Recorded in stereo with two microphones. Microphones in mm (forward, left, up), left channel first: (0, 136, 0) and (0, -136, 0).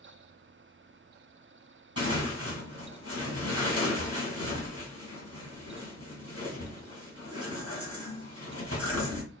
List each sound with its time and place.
2.0 s tearing paper: 55° left (ahead or behind), 3 m